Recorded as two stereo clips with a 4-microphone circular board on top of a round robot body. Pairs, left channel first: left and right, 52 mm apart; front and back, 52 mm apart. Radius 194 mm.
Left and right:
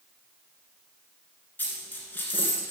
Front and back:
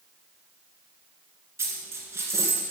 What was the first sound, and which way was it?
A dropped coin, 145° left.